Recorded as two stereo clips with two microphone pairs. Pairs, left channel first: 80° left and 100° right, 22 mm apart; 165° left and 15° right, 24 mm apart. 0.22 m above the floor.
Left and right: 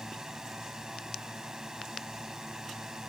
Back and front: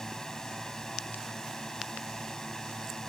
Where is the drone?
140° right.